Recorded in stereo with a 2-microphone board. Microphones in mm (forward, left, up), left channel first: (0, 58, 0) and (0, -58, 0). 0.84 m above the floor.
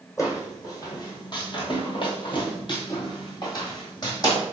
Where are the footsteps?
30° left (ahead or behind), 1.4 m.